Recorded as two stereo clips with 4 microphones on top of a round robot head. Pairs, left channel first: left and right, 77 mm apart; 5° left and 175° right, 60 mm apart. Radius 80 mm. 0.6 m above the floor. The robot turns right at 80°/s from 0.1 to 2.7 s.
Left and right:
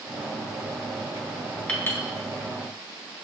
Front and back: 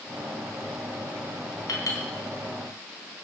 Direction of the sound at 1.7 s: 15° left.